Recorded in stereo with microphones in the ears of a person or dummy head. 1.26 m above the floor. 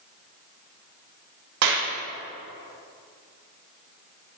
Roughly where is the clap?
Right.